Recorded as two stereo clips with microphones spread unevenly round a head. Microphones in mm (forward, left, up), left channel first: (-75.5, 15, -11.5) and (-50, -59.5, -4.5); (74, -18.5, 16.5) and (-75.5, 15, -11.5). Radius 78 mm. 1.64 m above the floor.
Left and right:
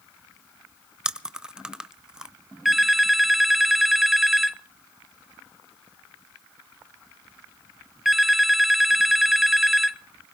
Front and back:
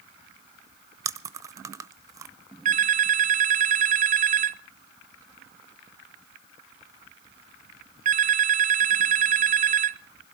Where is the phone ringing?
155° right, 0.7 m.